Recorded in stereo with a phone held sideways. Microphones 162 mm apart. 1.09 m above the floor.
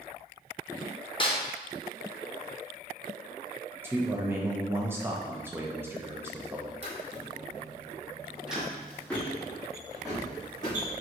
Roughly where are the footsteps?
Right.